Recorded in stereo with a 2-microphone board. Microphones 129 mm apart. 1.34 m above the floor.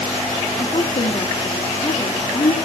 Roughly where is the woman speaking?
Left.